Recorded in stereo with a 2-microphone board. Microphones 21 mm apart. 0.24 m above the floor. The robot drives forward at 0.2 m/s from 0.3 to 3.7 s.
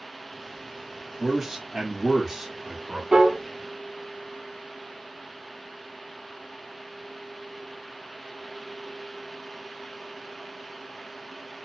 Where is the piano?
50° right (ahead or behind), 1.1 m.